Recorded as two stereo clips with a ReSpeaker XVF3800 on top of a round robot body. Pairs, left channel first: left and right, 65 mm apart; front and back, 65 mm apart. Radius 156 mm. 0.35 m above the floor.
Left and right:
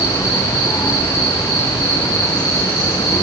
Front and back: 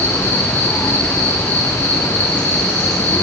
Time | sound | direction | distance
0.0 | an insect | 65° left | 4.5 m